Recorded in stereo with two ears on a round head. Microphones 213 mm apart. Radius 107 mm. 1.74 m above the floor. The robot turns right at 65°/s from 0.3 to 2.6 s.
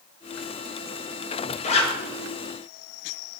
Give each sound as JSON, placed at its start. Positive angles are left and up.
{"t": 1.6, "sound": "a zipper", "side_deg": 30, "distance_m": 0.8}